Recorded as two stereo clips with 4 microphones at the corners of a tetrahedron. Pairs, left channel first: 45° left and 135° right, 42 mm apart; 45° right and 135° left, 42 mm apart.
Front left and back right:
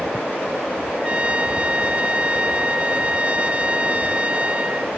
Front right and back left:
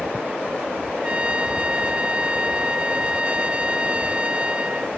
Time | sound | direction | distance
1.0 | a trumpet | 175° right | ?